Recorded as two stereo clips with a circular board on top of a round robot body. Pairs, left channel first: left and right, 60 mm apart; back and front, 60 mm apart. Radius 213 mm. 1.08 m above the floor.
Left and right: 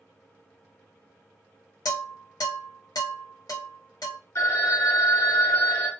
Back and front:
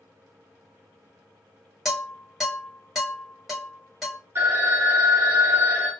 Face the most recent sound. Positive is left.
turn(degrees=50)